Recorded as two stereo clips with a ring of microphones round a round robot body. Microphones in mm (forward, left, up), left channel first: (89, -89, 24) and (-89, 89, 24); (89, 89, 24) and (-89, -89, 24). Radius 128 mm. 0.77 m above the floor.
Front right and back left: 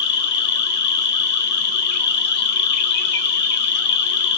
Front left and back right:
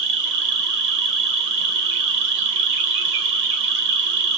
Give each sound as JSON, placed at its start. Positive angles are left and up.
{"t": 0.0, "sound": "an insect", "azimuth_deg": -95, "distance_m": 0.9}